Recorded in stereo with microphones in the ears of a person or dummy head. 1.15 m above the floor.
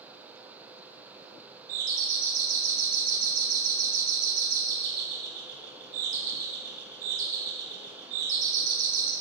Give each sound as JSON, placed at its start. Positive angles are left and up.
{"t": 1.7, "sound": "a doorbell", "side_deg": -45, "distance_m": 4.0}